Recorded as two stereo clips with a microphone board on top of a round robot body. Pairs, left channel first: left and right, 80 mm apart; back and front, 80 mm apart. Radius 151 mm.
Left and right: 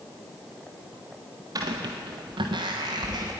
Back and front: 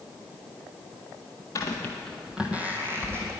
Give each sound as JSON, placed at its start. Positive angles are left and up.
{"t": 1.6, "sound": "footsteps", "azimuth_deg": -130, "distance_m": 0.9}